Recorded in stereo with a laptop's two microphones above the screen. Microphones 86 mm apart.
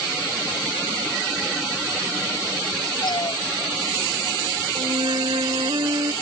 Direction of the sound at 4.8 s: 65° right (ahead or behind).